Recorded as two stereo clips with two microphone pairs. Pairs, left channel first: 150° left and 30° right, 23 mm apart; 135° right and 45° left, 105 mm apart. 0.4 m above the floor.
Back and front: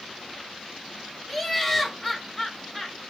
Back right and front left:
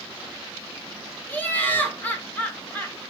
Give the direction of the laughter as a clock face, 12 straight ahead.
5 o'clock.